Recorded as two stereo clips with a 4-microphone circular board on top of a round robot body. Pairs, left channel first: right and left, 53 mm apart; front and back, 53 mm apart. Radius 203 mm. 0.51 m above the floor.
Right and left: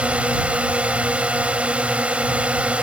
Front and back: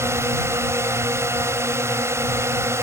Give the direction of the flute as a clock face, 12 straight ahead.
I don't hear a flute.